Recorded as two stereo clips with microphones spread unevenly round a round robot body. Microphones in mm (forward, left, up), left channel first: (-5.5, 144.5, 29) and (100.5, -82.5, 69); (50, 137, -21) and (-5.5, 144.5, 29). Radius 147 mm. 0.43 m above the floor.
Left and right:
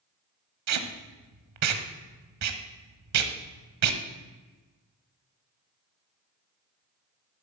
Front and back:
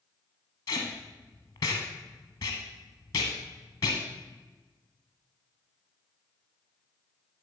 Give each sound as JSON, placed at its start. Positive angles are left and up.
{"t": 0.7, "sound": "tape being pulled", "azimuth_deg": -40, "distance_m": 1.2}